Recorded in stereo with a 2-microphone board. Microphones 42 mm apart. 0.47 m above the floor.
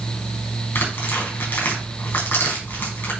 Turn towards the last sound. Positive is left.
turn(degrees=65)  # may be behind; listen again after turning